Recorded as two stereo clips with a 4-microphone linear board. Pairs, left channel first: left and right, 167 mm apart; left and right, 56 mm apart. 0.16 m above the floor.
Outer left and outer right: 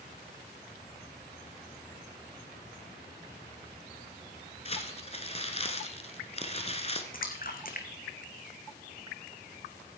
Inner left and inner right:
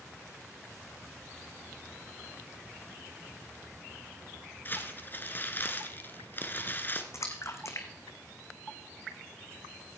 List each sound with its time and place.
4.7 s crumpling: 35° left (ahead or behind), 1.4 m
7.1 s a splash: 55° left (ahead or behind), 1.8 m